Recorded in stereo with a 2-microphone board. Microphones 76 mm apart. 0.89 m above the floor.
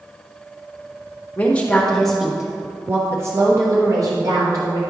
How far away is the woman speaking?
About 1.1 m.